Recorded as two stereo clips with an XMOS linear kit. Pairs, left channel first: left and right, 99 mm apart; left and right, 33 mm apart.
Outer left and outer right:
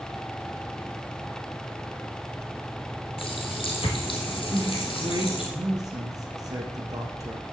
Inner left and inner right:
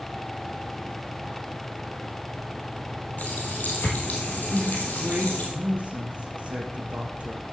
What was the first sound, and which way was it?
A running tap, 65° left (ahead or behind).